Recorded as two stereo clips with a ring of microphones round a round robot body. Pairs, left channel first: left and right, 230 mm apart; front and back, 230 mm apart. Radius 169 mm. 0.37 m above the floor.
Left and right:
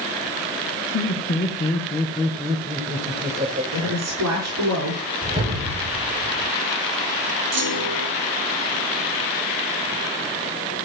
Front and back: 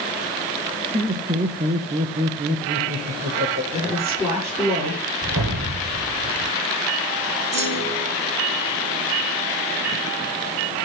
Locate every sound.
0.9 s laughter: 140° left, 1.8 m; by 3.6 s 145° right, 2 m
3.7 s a woman speaking: 100° right, 7 m
5.2 s a whoosh: 155° right, 5 m
7.5 s a clunk: 100° right, 7 m